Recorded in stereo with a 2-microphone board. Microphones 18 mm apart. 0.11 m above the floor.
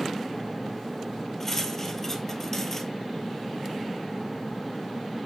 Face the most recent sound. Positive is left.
turn(degrees=20)  # may be behind; listen again after turning